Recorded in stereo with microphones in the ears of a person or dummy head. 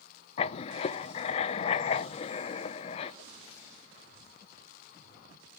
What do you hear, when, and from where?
0.4 s writing: 35° left (ahead or behind), 0.6 m